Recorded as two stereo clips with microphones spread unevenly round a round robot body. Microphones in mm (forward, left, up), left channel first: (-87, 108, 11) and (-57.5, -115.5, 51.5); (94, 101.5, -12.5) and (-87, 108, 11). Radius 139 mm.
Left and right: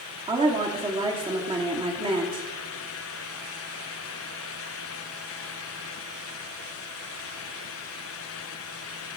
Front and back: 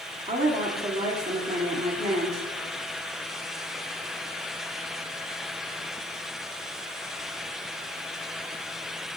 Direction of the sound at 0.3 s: 145° right.